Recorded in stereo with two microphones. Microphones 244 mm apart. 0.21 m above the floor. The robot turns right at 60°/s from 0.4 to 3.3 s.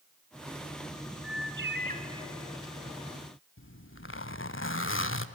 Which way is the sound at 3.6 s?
55° left (ahead or behind).